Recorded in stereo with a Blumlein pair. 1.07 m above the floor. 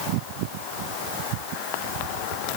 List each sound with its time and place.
Only background noise.